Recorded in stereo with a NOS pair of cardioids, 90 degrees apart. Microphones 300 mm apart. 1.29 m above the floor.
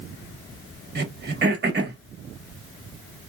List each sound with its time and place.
0.9 s throat clearing: 35° right, 1.3 m